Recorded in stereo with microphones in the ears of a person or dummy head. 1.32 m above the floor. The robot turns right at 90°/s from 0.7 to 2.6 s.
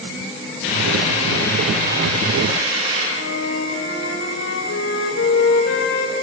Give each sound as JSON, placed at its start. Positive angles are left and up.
{"t": 0.6, "sound": "a hiss", "azimuth_deg": 95, "distance_m": 8.0}
{"t": 3.2, "sound": "a flute", "side_deg": 80, "distance_m": 3.0}